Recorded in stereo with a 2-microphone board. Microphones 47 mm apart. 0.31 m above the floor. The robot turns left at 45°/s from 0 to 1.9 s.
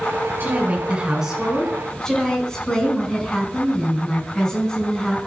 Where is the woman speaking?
130° right, 3.5 m; by 5.2 s 165° left, 3.5 m.